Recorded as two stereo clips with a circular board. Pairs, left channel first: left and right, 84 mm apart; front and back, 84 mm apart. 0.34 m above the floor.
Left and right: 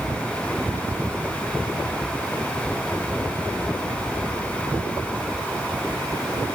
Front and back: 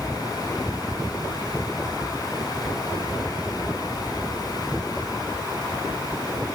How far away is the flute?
I don't hear a flute.